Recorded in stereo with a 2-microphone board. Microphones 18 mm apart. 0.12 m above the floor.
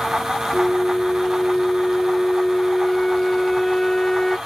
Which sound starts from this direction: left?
A flute, at 0.5 s.